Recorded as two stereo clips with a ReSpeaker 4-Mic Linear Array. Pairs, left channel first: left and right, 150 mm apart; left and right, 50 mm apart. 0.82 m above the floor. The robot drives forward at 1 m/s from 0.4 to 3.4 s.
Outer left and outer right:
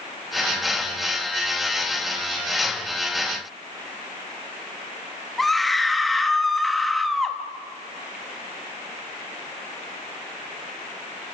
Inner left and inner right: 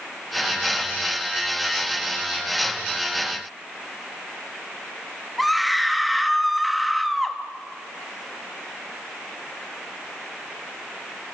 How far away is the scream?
About 0.9 m.